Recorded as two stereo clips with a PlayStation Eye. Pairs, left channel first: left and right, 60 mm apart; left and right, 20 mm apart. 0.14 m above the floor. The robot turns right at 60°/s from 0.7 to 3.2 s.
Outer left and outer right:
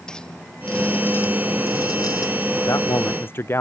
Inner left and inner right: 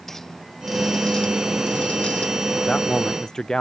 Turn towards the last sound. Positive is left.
turn(degrees=140)